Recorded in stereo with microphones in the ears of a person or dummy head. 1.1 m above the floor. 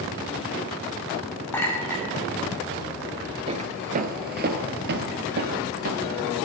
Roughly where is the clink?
Centre.